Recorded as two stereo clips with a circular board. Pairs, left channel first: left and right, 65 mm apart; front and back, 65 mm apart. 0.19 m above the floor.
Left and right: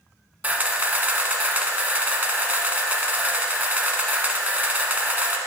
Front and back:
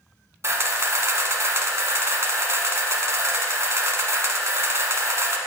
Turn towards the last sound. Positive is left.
turn(degrees=-150)